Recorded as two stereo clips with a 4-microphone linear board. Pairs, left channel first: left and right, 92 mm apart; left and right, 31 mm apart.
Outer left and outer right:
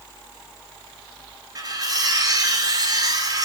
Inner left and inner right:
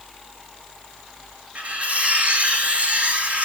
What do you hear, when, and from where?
1.6 s cutlery clinking: 45° right (ahead or behind), 1.7 m